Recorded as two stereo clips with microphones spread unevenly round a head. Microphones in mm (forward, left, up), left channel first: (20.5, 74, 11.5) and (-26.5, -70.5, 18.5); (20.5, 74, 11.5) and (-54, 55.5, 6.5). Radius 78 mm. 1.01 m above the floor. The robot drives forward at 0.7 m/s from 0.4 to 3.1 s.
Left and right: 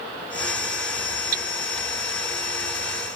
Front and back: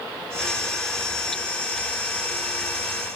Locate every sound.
1.3 s hammering: 70° right; by 1.5 s 75° right